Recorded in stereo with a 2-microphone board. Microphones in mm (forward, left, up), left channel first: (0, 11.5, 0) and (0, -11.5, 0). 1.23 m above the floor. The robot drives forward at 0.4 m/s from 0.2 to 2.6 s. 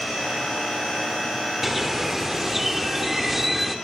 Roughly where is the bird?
Centre.